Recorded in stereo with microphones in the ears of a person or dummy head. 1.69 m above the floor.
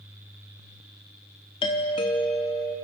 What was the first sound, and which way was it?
A doorbell, 25° left (ahead or behind).